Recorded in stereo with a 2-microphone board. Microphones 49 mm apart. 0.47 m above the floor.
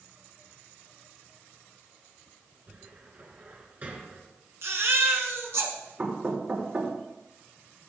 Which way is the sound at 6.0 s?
40° right (ahead or behind).